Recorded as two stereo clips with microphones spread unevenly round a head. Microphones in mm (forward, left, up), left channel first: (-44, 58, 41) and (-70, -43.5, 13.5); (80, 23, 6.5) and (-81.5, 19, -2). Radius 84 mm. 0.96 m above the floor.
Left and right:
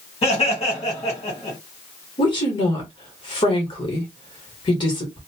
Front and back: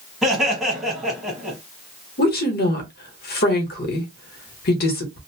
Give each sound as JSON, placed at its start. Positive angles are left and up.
{"t": 0.2, "sound": "laughter", "azimuth_deg": 100, "distance_m": 1.2}
{"t": 2.2, "sound": "a woman speaking", "azimuth_deg": 20, "distance_m": 1.1}